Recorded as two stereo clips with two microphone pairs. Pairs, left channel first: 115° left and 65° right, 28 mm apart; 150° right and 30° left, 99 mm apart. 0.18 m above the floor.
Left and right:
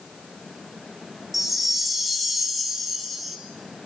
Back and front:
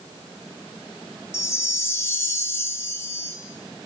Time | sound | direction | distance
1.3 | a chime | 145° right | 0.6 m